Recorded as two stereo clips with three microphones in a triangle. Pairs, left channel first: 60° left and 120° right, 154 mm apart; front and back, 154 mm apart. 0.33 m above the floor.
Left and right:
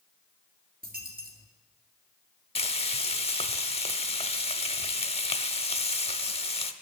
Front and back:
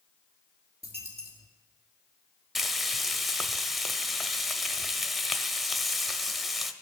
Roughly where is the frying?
Left.